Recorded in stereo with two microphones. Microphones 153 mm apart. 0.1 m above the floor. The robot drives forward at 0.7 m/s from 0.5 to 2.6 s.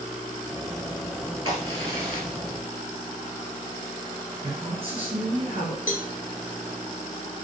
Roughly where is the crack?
Right.